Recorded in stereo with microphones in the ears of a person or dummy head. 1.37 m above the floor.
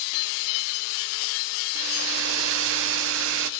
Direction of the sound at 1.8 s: 80° right.